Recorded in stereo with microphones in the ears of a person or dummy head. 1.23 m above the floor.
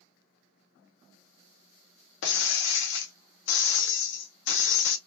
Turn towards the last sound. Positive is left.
turn(degrees=65)  # may be behind; listen again after turning